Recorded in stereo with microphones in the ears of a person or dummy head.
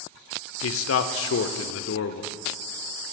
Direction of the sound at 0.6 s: 70° left (ahead or behind).